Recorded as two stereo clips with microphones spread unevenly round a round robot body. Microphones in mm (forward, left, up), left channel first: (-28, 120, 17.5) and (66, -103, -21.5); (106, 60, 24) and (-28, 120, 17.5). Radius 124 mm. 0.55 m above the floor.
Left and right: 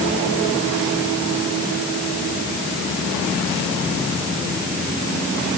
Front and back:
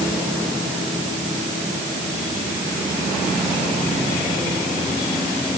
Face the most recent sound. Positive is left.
No sound to turn to.